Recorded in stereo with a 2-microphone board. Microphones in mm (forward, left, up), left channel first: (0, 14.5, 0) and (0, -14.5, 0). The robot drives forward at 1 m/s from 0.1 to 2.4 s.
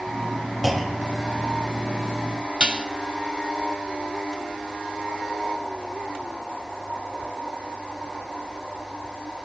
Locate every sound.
0.6 s a clunk: 5° right (ahead or behind), 1.6 m; by 1.4 s centre (ahead or behind), 1.9 m
2.6 s dishes clattering: 30° right (ahead or behind), 0.7 m